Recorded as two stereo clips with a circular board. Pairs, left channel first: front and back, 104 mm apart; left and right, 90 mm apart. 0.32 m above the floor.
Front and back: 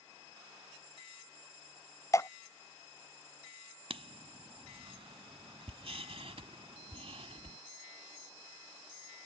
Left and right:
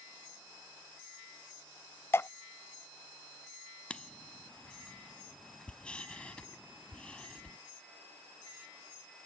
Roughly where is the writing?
Behind.